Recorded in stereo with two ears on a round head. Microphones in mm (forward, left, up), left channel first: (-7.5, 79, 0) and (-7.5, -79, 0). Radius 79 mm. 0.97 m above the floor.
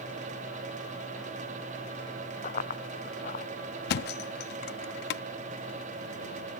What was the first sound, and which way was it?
Running footsteps, 45° left (ahead or behind).